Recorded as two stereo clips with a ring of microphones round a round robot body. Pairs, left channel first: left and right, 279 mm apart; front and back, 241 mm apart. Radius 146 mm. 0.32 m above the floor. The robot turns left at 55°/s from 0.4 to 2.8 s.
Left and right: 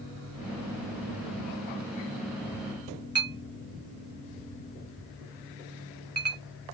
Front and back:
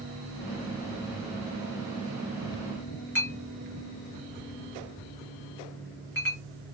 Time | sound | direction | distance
3.1 | a clink | 20° right | 1.5 m